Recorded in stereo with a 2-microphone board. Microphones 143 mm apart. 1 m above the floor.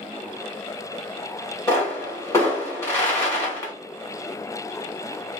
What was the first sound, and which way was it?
A pop, 20° left (ahead or behind).